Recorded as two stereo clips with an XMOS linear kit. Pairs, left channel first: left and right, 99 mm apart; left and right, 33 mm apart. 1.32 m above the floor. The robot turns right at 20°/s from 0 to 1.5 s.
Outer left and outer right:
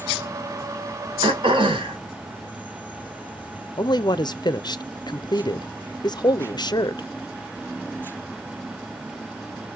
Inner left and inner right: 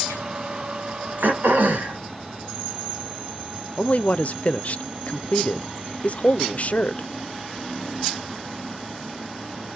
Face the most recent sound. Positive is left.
turn(degrees=45)  # may be behind; listen again after turning